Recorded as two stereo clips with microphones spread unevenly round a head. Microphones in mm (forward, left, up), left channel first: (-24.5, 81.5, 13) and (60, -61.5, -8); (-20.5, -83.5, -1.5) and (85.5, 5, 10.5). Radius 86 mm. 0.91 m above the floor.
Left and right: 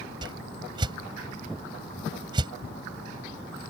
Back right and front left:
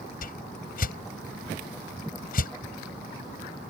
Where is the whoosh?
125° right.